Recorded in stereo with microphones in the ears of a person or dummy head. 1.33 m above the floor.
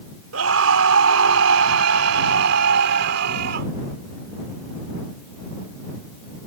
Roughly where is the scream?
Right.